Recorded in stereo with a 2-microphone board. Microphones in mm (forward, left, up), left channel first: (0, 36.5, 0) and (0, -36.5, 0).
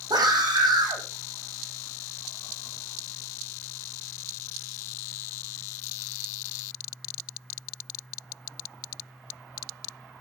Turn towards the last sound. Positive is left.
turn(degrees=-75)  # may be behind; listen again after turning